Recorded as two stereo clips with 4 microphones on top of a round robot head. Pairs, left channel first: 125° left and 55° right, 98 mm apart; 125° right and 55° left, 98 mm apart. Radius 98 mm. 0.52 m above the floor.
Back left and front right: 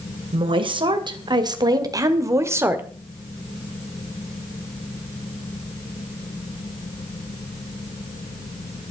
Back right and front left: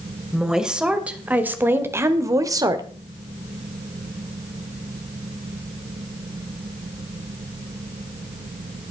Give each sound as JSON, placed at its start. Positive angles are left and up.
{"t": 0.3, "sound": "a woman speaking", "azimuth_deg": -30, "distance_m": 2.5}